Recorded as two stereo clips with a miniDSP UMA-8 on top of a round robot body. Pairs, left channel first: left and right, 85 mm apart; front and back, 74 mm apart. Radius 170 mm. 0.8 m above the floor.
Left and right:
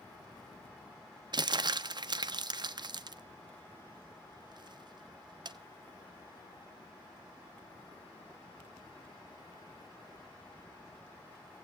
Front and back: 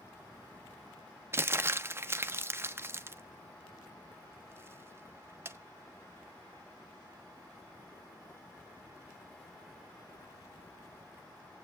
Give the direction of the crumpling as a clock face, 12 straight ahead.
4 o'clock.